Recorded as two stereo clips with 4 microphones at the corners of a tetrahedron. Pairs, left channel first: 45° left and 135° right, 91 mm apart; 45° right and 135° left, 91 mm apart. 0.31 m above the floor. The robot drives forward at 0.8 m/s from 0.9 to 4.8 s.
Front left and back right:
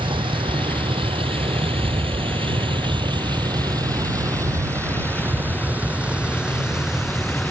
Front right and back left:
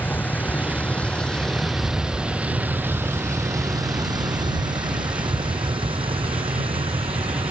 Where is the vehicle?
115° right; by 7.5 s 135° left.